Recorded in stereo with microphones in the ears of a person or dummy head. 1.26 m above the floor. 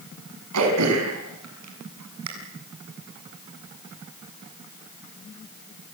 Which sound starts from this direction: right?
Throat clearing, at 0.5 s.